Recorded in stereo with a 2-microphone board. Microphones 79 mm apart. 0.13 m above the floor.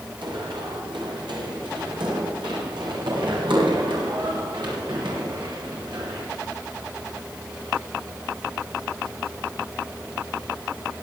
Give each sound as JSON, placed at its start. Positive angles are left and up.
{"t": 0.2, "sound": "running footsteps", "side_deg": -85, "distance_m": 9.5}